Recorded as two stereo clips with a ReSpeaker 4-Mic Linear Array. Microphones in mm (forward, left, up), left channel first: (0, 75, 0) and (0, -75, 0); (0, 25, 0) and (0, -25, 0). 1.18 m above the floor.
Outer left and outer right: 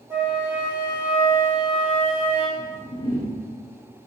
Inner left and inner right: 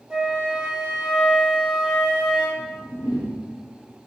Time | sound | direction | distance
0.1 | a flute | 15° right (ahead or behind) | 1.0 m
2.6 | a whoosh | 80° left | 0.8 m